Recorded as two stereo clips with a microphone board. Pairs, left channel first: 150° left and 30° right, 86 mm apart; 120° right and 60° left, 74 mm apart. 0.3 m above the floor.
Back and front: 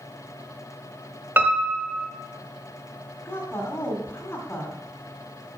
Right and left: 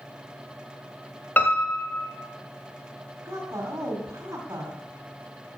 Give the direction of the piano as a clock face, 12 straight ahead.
3 o'clock.